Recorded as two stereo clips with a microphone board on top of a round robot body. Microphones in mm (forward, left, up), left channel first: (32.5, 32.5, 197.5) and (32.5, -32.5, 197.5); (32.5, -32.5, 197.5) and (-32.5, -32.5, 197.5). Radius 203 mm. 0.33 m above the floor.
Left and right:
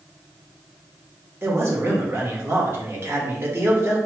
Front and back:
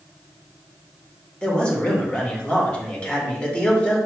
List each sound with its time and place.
1.4 s a man speaking: 65° right, 1.6 m